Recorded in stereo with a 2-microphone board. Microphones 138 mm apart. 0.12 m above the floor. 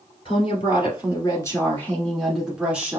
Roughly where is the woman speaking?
Left.